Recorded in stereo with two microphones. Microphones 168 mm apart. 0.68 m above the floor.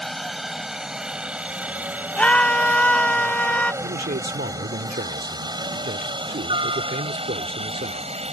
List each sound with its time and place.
0.0 s a helicopter: centre (ahead or behind); by 8.3 s 40° right (ahead or behind)
2.2 s a scream: 10° left (ahead or behind)
3.8 s a man speaking: 70° right (ahead or behind)